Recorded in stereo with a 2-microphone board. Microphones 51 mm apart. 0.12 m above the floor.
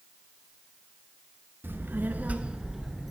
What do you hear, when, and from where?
1.6 s a child speaking: 45° right (ahead or behind), 0.9 m; by 3.1 s centre (ahead or behind), 1.0 m